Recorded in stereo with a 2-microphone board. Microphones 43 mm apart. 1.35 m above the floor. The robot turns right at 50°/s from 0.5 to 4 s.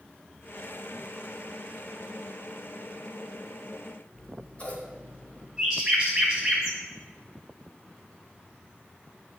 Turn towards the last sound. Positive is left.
turn(degrees=-10)  # may be behind; listen again after turning